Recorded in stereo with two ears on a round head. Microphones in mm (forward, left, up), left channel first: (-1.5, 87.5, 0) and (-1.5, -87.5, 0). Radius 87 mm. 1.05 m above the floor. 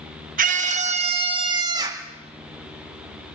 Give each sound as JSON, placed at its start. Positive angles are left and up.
{"t": 0.4, "sound": "a scream", "side_deg": -45, "distance_m": 1.5}